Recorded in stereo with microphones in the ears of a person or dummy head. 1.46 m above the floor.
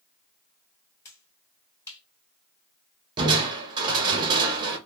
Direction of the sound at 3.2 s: 20° right (ahead or behind).